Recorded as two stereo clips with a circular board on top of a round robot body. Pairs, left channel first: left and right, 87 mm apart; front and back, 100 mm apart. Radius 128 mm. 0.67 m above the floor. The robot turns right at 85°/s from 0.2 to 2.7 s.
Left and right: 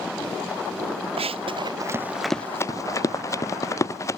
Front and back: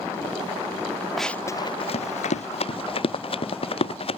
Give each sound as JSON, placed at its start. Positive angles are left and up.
{"t": 1.2, "sound": "running footsteps", "azimuth_deg": -90}